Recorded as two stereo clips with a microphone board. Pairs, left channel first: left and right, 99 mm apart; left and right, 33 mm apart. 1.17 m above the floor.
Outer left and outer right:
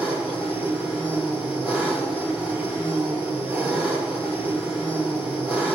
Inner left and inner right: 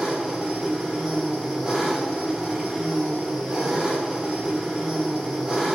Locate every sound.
0.0 s an engine running: 15° right (ahead or behind), 1.6 m